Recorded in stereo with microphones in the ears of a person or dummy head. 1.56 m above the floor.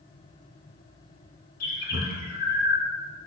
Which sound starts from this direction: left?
A bird, at 1.6 s.